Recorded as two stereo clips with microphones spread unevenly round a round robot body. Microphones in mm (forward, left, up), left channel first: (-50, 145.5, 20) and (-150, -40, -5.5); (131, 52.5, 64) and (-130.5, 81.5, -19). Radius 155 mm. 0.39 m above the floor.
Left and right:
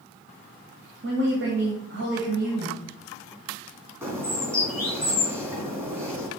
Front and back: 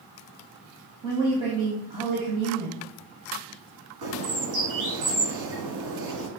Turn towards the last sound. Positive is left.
turn(degrees=165)